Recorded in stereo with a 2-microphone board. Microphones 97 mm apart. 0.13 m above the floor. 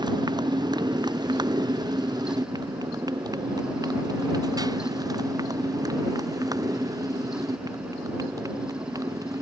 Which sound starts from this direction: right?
A motorcycle, at 0.0 s.